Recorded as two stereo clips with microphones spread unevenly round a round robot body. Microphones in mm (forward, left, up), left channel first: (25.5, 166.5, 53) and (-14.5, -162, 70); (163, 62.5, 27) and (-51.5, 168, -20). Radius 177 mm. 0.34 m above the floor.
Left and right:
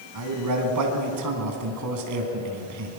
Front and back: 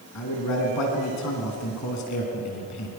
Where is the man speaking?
60° right, 3.5 m.